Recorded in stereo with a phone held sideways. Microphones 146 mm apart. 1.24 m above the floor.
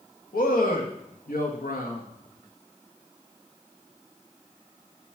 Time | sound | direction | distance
0.3 | a man speaking | 85° left | 1.8 m